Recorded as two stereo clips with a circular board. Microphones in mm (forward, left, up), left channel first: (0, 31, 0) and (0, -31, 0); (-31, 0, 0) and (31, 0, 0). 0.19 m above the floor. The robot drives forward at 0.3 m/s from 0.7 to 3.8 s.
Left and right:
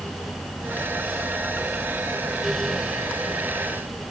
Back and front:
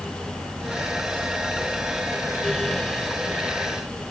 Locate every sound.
Only background noise.